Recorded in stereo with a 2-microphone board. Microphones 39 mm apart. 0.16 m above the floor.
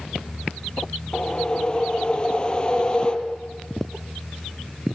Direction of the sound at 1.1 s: 30° left (ahead or behind).